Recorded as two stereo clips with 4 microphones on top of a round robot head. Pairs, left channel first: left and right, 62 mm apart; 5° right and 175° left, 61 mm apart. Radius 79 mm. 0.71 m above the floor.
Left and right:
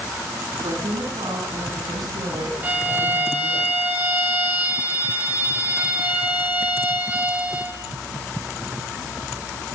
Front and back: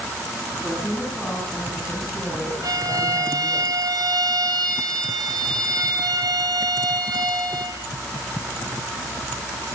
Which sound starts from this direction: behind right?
A violin, at 2.6 s.